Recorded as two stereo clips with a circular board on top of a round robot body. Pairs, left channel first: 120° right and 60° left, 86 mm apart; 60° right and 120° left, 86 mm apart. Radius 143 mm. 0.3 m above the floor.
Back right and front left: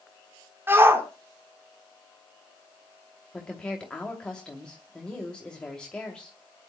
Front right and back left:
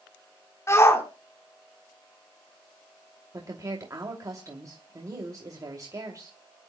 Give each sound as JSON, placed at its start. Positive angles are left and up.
{"t": 0.7, "sound": "a shout", "azimuth_deg": -5, "distance_m": 4.0}
{"t": 3.3, "sound": "a woman speaking", "azimuth_deg": 160, "distance_m": 2.5}